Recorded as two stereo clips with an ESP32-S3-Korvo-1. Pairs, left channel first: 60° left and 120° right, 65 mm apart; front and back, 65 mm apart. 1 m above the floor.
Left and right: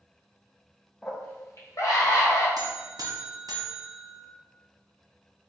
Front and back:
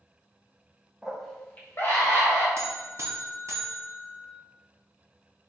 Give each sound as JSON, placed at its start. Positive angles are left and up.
{"t": 1.0, "sound": "a scream", "azimuth_deg": 110, "distance_m": 0.7}
{"t": 2.6, "sound": "a buzzer", "azimuth_deg": -135, "distance_m": 0.7}